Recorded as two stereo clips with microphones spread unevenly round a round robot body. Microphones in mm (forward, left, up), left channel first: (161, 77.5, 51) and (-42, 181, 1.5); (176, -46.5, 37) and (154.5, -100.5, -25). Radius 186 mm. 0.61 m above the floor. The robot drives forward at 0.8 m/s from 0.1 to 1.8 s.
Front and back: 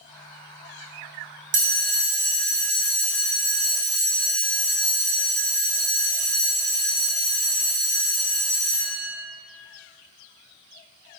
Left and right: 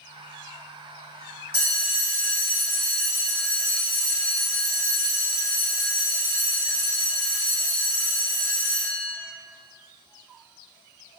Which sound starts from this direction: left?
A bell, at 1.5 s.